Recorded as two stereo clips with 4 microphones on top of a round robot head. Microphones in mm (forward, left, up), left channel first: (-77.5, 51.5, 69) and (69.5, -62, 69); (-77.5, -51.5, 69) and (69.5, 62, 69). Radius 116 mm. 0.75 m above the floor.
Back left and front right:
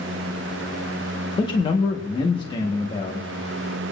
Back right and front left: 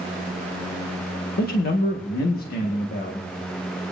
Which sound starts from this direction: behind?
A man speaking, at 1.4 s.